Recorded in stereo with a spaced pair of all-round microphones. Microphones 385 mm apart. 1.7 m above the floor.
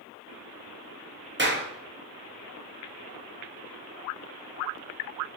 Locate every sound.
1.4 s a clap: 30° right (ahead or behind), 0.6 m